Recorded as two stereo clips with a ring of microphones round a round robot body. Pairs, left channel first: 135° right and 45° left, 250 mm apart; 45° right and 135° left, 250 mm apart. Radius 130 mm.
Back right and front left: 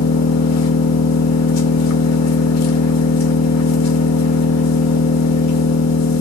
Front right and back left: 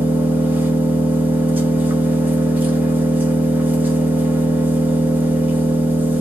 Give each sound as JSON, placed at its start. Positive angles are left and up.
{"t": 0.0, "sound": "an engine running", "azimuth_deg": -145, "distance_m": 0.8}